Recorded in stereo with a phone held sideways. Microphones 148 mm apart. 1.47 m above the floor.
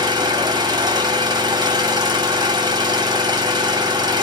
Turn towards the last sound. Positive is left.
turn(degrees=-30)  # may be behind; listen again after turning